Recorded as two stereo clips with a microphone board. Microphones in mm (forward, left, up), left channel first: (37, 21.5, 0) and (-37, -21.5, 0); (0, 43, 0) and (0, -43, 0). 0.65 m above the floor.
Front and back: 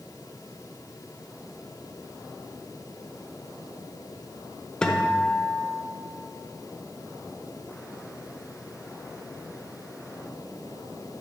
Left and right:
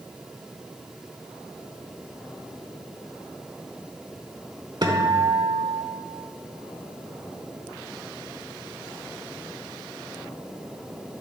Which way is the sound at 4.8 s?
50° right.